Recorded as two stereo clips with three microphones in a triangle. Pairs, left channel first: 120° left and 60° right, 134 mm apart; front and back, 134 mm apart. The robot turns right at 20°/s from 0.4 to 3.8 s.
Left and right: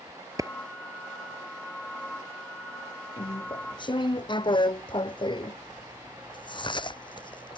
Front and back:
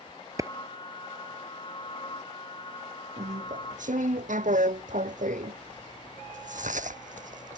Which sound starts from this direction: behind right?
A clap, at 0.4 s.